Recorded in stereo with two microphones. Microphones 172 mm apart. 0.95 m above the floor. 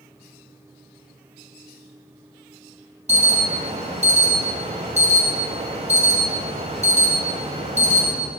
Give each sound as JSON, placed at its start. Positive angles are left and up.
{"t": 3.1, "sound": "an alarm", "side_deg": -40, "distance_m": 6.5}